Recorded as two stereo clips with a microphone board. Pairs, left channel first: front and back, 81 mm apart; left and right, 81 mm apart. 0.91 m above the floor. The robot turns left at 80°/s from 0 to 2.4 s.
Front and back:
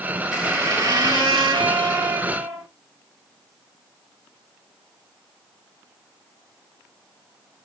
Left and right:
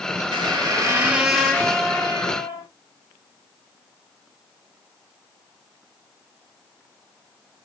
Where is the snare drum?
I don't hear a snare drum.